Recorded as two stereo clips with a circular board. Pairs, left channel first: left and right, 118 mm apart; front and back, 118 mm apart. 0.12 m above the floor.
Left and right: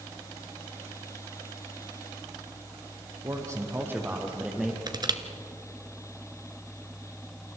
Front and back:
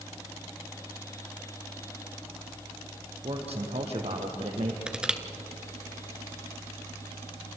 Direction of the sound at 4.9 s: 105° right.